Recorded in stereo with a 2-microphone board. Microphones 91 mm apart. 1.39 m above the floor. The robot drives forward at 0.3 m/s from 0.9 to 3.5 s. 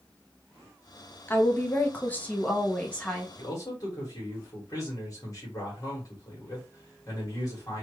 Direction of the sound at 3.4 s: 40° left (ahead or behind).